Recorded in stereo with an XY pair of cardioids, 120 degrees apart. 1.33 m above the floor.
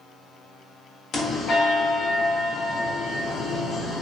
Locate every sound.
1.1 s a bell: 65° left, 1.2 m